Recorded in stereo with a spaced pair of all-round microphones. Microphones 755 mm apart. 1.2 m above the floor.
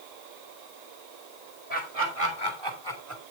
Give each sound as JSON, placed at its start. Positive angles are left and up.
{"t": 1.7, "sound": "laughter", "side_deg": -50, "distance_m": 4.0}